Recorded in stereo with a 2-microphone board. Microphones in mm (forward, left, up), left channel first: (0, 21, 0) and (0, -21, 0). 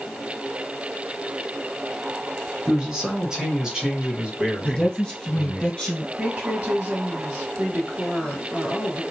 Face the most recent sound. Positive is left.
turn(degrees=-30)  # may be behind; listen again after turning